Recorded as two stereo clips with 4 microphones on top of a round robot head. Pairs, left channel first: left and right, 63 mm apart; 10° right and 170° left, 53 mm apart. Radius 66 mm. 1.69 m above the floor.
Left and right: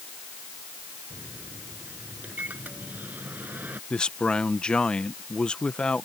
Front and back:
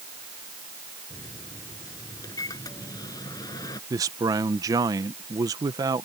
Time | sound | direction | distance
1.1 | a microwave | 20° right | ?
3.9 | a man speaking | 165° left | ?